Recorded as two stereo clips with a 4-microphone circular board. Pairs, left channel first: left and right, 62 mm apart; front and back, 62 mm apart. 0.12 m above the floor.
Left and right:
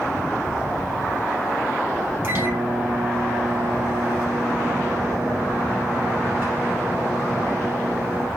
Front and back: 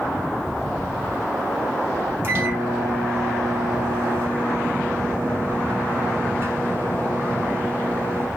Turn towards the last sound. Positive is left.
turn(degrees=-130)